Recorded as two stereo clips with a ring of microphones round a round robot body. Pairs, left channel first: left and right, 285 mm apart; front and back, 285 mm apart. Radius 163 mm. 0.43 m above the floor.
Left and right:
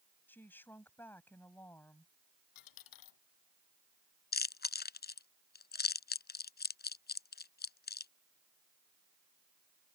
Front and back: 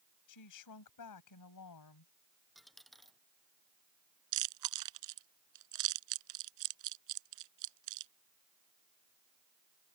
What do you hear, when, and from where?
0.3 s a woman speaking: 5° left
2.5 s a dropped coin: 90° left
4.3 s chewing: 145° left